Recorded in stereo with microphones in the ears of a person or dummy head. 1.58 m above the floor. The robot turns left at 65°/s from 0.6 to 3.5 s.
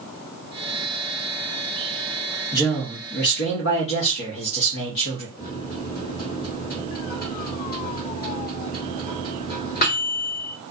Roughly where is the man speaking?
Behind.